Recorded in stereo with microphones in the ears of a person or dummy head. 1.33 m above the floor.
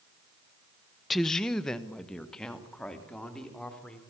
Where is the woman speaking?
5° left (ahead or behind), 0.5 m; by 4.0 s 10° left (ahead or behind), 4.5 m.